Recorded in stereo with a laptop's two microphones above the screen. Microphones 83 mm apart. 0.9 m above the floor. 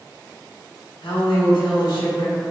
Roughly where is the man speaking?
Left.